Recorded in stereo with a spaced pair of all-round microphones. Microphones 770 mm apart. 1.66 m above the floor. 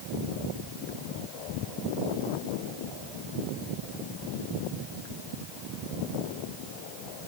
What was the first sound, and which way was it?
Only background noise.